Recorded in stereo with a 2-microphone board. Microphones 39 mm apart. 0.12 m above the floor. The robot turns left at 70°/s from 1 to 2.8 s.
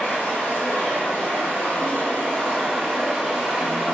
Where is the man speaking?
No man speaking in this recording.